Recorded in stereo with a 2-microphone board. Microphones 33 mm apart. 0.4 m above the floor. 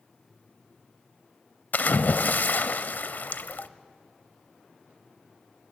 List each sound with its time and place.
1.7 s a splash: 65° left (ahead or behind), 0.8 m